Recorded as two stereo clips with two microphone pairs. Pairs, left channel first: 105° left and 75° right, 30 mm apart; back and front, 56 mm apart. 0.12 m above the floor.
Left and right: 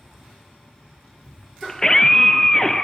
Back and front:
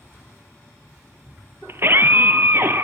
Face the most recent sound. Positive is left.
turn(degrees=35)